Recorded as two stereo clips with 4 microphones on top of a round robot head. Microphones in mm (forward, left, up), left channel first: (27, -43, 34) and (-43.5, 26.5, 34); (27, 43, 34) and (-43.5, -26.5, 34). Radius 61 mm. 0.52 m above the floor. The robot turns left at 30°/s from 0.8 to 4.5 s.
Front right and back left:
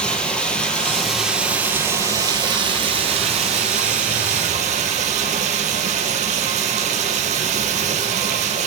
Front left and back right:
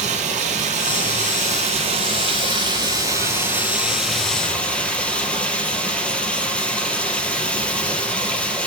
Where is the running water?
125° right, 4 m; by 8.7 s 125° left, 4 m.